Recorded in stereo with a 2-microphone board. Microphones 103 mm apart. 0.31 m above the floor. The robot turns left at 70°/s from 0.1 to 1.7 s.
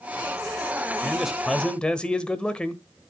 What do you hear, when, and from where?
1.0 s a man speaking: 10° right (ahead or behind), 1.1 m; by 2.8 s 10° left (ahead or behind), 1.1 m